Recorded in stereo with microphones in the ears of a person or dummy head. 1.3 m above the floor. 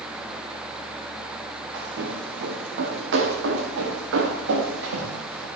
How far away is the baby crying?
No baby crying in this recording.